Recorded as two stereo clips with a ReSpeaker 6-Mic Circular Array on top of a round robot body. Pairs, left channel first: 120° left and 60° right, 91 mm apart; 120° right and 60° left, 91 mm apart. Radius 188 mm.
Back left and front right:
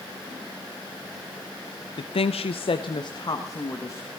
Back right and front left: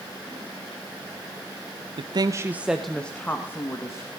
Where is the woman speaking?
90° left, 0.8 m; by 4.1 s straight behind, 1.9 m.